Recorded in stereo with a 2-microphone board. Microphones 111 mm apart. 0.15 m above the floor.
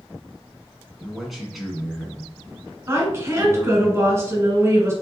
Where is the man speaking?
Centre (ahead or behind), 1.3 m.